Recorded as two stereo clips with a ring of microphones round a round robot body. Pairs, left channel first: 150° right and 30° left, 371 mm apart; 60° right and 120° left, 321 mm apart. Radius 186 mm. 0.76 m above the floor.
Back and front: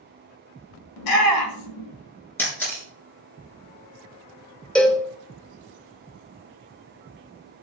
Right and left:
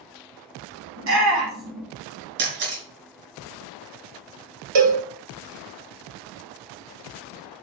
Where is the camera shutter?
125° left, 4 m.